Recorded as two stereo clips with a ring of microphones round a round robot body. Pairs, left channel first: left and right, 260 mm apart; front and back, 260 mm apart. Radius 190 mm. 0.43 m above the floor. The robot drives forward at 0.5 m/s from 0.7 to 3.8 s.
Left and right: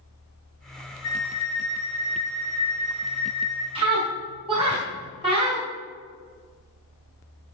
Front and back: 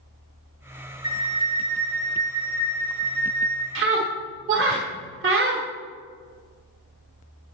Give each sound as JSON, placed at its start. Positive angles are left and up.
{"t": 1.0, "sound": "a flute", "azimuth_deg": 105, "distance_m": 2.0}
{"t": 3.8, "sound": "a scream", "azimuth_deg": -155, "distance_m": 1.4}